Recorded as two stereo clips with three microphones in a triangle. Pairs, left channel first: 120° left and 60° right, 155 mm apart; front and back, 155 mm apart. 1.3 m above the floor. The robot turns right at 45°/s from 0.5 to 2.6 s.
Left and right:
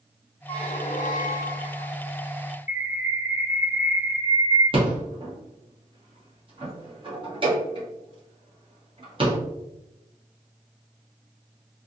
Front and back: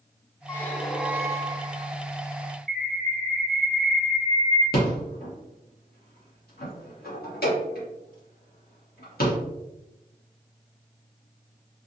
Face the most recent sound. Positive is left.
turn(degrees=-5)